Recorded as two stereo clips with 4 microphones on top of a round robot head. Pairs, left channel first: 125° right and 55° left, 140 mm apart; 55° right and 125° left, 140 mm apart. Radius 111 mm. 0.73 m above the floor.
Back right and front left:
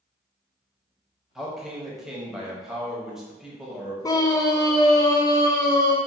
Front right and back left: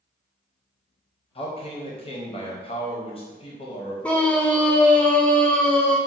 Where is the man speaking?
30° right, 0.9 m.